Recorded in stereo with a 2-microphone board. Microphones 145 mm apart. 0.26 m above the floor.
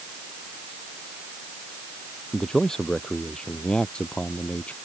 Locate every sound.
2.3 s a man speaking: 5° left (ahead or behind); by 4.8 s 10° left (ahead or behind)